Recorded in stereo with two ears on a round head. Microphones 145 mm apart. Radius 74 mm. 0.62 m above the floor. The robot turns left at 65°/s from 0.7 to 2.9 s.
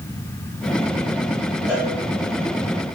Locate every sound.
1.7 s a cowbell: 10° right (ahead or behind), 2.0 m; by 1.9 s 5° left (ahead or behind), 2.0 m